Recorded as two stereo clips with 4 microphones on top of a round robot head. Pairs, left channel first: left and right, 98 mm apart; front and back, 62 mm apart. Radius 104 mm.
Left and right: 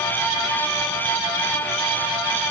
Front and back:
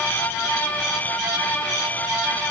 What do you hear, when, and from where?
Only background noise.